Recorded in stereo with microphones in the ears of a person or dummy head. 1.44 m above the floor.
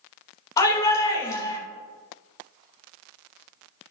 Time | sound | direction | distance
0.6 | a shout | 20° left (ahead or behind) | 2 m